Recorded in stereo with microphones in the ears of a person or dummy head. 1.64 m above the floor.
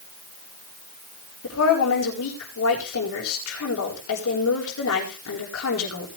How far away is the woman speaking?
About 9.5 m.